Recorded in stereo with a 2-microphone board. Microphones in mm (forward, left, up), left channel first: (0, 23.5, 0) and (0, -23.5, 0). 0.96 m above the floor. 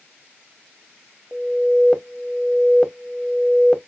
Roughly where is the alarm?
Centre.